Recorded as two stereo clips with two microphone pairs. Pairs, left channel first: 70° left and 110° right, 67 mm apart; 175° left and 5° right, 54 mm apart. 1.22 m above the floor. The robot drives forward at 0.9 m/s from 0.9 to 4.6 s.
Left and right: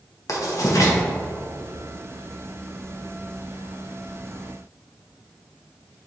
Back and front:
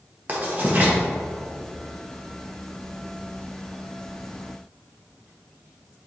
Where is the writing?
45° left, 1.3 m.